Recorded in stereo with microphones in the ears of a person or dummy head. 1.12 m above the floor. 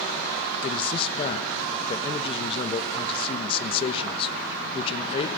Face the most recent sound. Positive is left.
turn(degrees=30)  # may be behind; listen again after turning